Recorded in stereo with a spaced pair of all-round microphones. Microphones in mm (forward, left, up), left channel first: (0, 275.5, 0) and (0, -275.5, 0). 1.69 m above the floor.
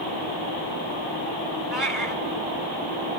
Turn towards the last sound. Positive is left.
turn(degrees=-40)  # may be behind; listen again after turning